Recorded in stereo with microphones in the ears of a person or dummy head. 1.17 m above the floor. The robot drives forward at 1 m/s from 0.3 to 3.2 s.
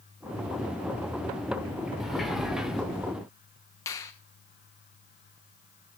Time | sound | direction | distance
2.0 | a sliding door | centre (ahead or behind) | 1.9 m
3.9 | a finger snap | 15° left (ahead or behind) | 0.9 m